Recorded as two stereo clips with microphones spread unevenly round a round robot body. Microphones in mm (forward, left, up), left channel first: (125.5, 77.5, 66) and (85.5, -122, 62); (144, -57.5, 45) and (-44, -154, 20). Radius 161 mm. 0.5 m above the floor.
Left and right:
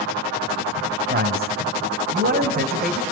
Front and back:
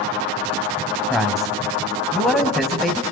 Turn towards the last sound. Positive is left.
turn(degrees=-65)